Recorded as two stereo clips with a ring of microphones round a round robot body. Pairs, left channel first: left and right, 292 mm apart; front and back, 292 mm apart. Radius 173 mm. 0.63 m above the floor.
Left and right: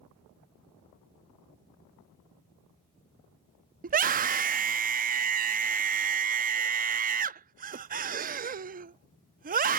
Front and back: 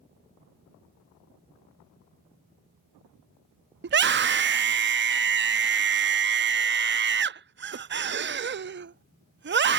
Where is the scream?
140° right.